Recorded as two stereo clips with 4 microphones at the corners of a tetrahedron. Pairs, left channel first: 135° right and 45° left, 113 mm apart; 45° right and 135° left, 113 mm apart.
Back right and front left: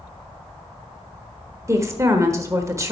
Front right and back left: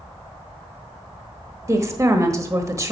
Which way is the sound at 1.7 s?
90° left.